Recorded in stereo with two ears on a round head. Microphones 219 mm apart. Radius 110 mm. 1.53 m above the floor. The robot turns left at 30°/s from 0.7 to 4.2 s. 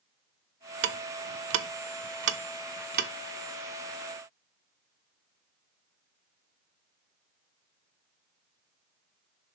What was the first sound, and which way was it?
Ticking, 45° right (ahead or behind).